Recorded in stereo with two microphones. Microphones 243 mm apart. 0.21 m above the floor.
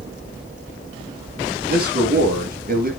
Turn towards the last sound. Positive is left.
turn(degrees=-40)  # may be behind; listen again after turning